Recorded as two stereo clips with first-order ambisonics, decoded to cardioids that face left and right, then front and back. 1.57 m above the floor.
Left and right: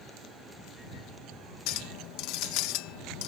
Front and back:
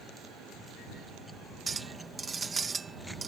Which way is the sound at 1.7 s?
105° left.